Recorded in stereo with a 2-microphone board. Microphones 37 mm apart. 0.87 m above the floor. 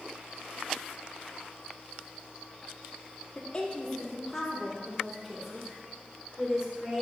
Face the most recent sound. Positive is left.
turn(degrees=-20)  # may be behind; listen again after turning